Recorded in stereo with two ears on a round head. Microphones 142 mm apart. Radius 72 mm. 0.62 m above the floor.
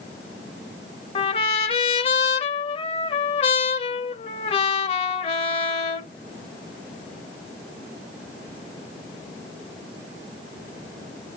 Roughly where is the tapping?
I don't hear tapping.